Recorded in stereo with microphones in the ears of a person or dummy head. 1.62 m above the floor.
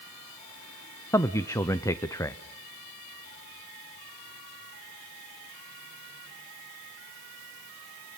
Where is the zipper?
I don't hear a zipper.